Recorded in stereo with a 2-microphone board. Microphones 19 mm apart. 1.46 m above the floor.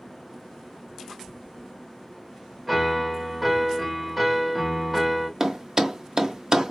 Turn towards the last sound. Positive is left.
turn(degrees=-30)  # may be behind; listen again after turning